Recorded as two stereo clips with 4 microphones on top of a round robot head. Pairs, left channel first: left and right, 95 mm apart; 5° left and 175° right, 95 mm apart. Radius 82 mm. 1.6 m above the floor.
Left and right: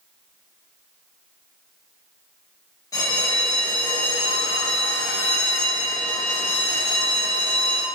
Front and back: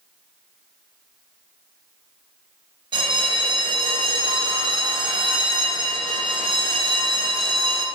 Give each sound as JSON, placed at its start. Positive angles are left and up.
{"t": 2.9, "sound": "a bell", "azimuth_deg": 150, "distance_m": 0.5}